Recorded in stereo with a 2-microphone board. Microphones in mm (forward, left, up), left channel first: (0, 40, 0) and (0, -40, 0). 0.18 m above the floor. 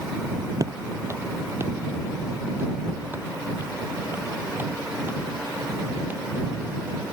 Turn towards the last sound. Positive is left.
turn(degrees=-20)  # may be behind; listen again after turning